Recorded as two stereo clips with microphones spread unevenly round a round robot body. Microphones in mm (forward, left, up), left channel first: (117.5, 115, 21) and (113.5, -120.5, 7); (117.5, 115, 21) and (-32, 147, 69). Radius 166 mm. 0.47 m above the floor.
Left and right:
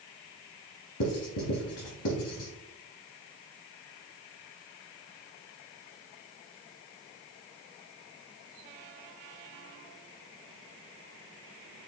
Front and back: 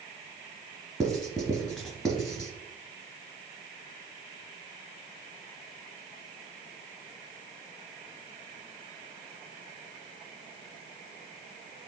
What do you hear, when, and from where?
1.0 s writing: 80° left, 2 m